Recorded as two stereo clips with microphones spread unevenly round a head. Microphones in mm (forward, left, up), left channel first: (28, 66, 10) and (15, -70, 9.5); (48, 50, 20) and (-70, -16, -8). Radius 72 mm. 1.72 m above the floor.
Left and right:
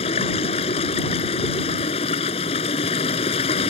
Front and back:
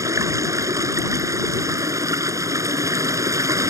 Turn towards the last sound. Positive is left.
turn(degrees=140)